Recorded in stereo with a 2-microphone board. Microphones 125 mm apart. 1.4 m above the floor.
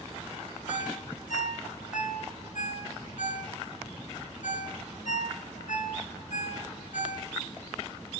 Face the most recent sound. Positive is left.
turn(degrees=80)